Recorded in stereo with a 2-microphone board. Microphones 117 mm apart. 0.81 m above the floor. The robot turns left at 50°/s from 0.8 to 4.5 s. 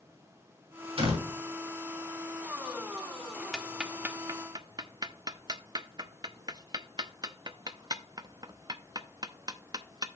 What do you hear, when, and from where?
1.0 s a door slam: 55° right (ahead or behind), 4.5 m; by 1.3 s 70° right (ahead or behind), 4.5 m
3.5 s ticking: 5° left (ahead or behind), 0.6 m; by 10.1 s 40° right (ahead or behind), 0.6 m